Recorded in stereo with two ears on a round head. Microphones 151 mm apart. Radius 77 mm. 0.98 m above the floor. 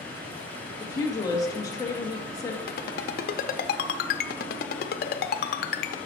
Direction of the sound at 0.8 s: 20° left (ahead or behind).